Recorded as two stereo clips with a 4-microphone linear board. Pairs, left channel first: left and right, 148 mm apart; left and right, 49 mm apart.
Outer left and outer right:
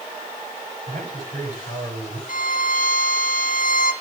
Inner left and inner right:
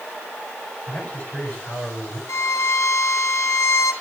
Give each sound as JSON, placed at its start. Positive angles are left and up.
{"t": 0.9, "sound": "a man speaking", "side_deg": 45, "distance_m": 6.0}
{"t": 2.3, "sound": "a violin", "side_deg": 70, "distance_m": 1.3}